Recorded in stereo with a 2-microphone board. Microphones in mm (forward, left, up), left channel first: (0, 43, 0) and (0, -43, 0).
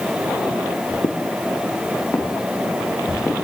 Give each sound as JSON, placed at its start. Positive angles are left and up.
{"t": 1.0, "sound": "footsteps", "side_deg": 60, "distance_m": 1.7}